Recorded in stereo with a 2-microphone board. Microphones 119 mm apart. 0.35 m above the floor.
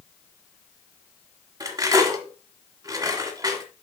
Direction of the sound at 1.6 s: 35° right (ahead or behind).